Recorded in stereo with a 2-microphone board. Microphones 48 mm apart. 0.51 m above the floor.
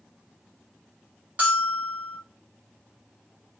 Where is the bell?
30° right (ahead or behind), 1.5 m.